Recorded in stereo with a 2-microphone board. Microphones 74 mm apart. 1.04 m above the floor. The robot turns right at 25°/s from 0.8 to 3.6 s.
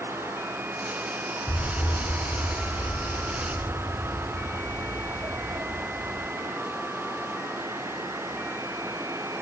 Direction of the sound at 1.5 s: 170° right.